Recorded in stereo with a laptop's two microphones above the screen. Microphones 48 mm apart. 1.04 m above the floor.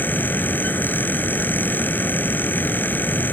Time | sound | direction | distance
0.0 | a fan | 45° left (ahead or behind) | ?